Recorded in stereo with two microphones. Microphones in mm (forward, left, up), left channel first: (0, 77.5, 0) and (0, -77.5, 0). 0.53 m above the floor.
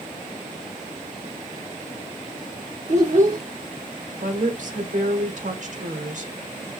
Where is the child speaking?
50° right (ahead or behind), 0.7 m.